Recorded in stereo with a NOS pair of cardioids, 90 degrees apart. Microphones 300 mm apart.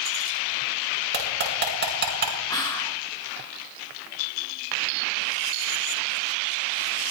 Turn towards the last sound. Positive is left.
turn(degrees=15)